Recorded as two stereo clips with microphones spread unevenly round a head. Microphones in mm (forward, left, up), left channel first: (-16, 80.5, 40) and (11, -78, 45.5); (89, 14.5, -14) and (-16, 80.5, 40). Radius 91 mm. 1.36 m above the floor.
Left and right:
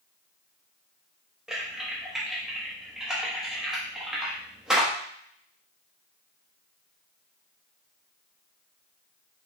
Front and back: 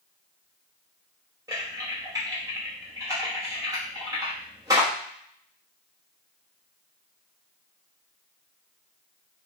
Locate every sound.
1.5 s typing on a keyboard: 165° right, 1.0 m